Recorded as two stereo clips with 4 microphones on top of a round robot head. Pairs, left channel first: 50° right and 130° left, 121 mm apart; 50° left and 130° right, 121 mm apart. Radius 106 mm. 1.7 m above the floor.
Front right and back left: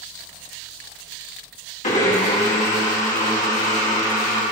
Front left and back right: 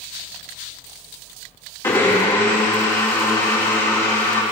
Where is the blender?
20° right, 2.5 m.